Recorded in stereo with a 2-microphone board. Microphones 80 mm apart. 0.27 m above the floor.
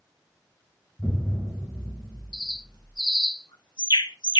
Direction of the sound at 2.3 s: 65° left (ahead or behind).